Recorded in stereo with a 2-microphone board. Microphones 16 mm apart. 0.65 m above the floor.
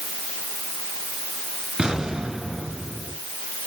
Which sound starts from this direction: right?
An explosion, at 1.8 s.